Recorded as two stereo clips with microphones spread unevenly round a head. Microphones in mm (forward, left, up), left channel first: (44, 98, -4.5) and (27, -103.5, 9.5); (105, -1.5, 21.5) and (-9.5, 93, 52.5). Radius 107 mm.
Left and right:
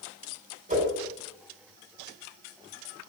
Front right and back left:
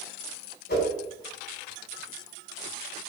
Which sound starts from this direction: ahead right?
A whoosh, at 0.7 s.